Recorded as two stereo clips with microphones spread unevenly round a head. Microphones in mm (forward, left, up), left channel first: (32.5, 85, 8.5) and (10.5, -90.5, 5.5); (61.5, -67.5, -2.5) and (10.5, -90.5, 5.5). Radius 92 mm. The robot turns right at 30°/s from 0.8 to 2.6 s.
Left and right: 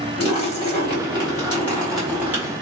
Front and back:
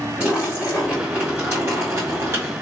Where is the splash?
135° left, 1.4 m; by 2.5 s 170° right, 1.4 m.